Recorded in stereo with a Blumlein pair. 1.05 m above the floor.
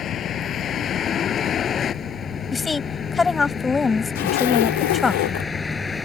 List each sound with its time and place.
0.0 s a vehicle: 30° left; by 6.1 s 15° left
2.5 s a woman speaking: 15° left
4.2 s a zipper: 50° left